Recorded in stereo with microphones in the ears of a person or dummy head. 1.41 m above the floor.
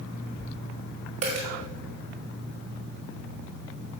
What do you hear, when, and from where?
1.2 s a dropped coin: 30° right (ahead or behind), 1.3 m